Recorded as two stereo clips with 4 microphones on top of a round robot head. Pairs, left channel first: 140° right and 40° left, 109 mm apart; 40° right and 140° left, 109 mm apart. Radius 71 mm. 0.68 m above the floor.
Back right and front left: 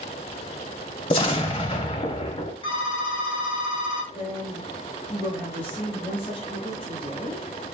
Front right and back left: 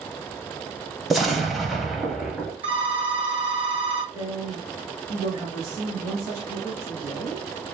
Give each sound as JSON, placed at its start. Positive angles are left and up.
{"t": 1.1, "sound": "an explosion", "azimuth_deg": -130, "distance_m": 0.5}
{"t": 2.6, "sound": "a phone ringing", "azimuth_deg": 180, "distance_m": 1.8}
{"t": 4.1, "sound": "a woman speaking", "azimuth_deg": -155, "distance_m": 2.5}